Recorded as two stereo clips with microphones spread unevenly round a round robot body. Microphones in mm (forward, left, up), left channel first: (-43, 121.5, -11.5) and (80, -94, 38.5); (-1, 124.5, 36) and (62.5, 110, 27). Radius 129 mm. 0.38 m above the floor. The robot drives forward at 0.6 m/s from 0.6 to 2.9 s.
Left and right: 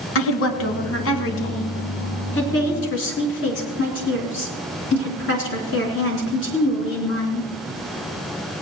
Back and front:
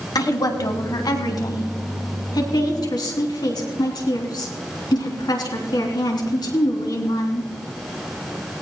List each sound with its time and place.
0.1 s a woman speaking: 150° left, 3 m; by 7.5 s 160° left, 4 m